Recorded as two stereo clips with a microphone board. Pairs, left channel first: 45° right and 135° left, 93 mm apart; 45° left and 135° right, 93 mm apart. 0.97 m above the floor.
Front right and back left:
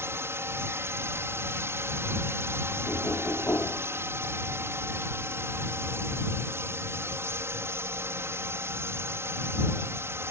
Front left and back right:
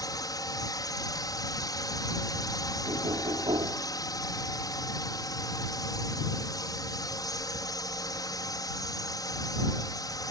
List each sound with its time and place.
0.0 s a drone: 80° left
2.9 s knocking: 110° right